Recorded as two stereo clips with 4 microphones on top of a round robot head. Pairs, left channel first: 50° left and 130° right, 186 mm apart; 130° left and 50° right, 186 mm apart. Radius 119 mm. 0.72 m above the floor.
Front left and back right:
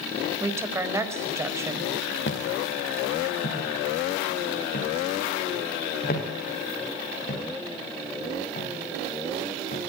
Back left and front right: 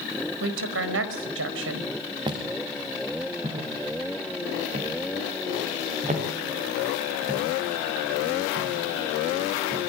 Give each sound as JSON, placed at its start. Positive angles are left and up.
{"t": 0.4, "sound": "a woman speaking", "azimuth_deg": -55, "distance_m": 4.5}
{"t": 2.3, "sound": "footsteps", "azimuth_deg": 20, "distance_m": 5.5}